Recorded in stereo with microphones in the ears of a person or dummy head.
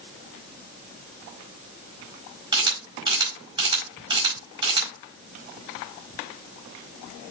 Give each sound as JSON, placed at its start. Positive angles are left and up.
{"t": 2.5, "sound": "a camera shutter", "side_deg": -25, "distance_m": 4.0}